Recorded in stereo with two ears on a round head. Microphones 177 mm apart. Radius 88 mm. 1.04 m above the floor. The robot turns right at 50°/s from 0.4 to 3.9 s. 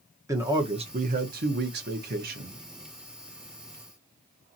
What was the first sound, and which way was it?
A man speaking, 160° right.